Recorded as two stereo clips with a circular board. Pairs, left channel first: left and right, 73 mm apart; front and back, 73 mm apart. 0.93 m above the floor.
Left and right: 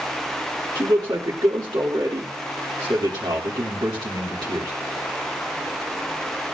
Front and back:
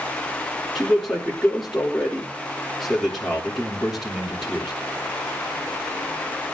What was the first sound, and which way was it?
A man speaking, 90° right.